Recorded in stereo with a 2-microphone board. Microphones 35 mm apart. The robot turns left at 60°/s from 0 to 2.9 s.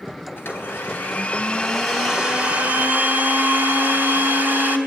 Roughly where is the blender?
Left.